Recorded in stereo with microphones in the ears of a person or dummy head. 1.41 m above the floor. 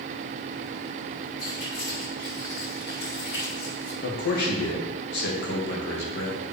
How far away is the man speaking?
About 1.9 m.